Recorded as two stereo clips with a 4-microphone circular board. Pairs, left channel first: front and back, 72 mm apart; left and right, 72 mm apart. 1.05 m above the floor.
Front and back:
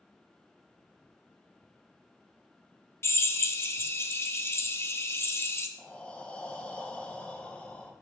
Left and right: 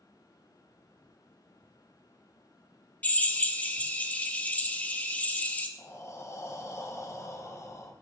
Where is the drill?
30° left, 0.6 m.